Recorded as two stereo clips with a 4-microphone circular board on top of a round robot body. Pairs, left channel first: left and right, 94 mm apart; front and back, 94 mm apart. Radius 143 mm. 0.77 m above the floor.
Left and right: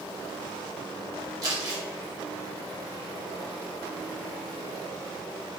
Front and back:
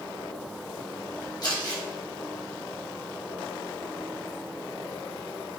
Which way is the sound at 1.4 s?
45° right.